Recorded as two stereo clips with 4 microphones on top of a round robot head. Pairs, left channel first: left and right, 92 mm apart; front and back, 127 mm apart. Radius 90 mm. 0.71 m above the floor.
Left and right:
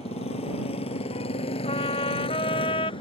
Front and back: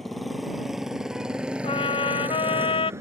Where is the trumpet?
40° left.